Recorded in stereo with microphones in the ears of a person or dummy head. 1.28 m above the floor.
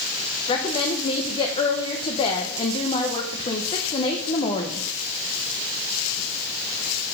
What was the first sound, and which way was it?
A woman speaking, 35° left (ahead or behind).